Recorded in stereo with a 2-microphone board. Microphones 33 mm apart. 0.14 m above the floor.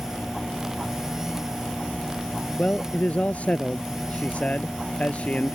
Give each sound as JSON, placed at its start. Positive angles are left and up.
{"t": 2.6, "sound": "a man speaking", "side_deg": 50}